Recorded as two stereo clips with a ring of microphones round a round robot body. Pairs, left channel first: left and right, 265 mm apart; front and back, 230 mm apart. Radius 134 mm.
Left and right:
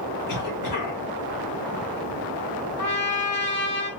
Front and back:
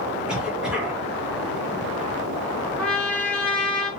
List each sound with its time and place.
0.3 s a cough: 95° left, 2.0 m
2.8 s a trumpet: 85° left, 1.2 m